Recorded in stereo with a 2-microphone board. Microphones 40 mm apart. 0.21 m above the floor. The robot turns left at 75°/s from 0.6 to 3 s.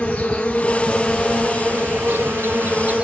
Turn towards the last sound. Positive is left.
turn(degrees=-150)